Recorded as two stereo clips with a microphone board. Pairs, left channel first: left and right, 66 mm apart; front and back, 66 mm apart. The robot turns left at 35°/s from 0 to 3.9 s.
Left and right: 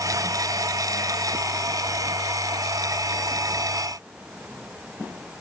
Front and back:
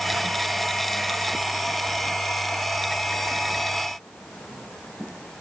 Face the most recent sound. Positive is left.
No sound to turn to.